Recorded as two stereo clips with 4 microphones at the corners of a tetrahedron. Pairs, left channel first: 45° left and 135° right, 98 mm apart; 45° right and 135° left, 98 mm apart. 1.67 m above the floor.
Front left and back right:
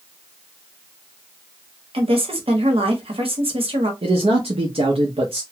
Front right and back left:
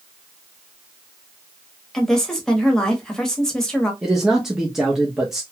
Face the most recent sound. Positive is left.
turn(degrees=-140)